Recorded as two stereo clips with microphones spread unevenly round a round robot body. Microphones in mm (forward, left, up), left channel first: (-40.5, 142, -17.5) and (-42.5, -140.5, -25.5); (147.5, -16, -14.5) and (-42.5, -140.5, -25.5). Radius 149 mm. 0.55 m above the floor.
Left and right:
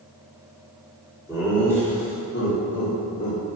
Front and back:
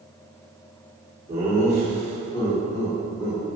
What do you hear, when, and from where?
1.3 s laughter: 165° left, 1.3 m; by 3.4 s 70° left, 1.8 m